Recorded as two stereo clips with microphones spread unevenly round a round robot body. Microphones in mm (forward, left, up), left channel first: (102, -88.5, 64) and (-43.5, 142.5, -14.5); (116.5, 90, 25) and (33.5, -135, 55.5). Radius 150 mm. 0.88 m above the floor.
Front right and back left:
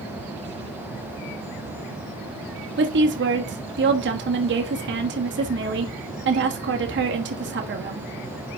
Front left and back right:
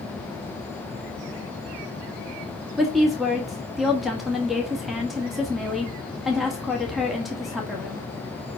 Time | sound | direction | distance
2.8 | a woman speaking | 155° left | 1.5 m